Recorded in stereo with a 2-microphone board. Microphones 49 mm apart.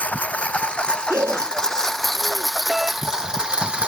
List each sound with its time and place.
0.0 s a lawn mower: 30° left (ahead or behind); by 3.9 s 20° right (ahead or behind)
1.1 s breathing: 70° right (ahead or behind)
2.7 s a doorbell: 5° right (ahead or behind)